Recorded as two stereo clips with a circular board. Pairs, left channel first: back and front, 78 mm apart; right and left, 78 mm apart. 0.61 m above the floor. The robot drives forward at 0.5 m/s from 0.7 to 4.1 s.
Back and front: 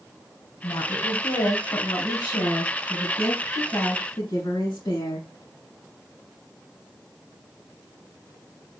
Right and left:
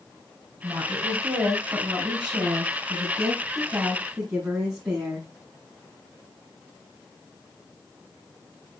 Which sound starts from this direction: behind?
A woman speaking, at 0.6 s.